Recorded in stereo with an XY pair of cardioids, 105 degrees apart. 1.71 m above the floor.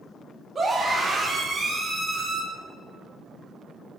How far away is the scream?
About 4.5 m.